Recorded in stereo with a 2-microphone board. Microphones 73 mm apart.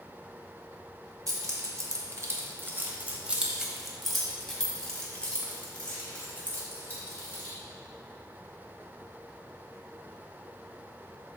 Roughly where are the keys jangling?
Right.